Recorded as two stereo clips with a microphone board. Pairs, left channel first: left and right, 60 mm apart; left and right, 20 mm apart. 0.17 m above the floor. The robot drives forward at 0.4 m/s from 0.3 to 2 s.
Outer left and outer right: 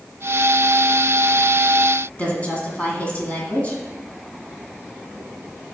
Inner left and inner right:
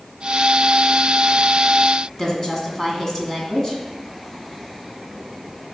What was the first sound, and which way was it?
A woman speaking, 25° left (ahead or behind).